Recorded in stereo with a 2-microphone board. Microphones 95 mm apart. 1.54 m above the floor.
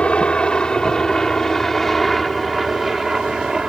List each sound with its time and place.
0.0 s a helicopter: 10° left (ahead or behind); by 3.7 s 10° right (ahead or behind)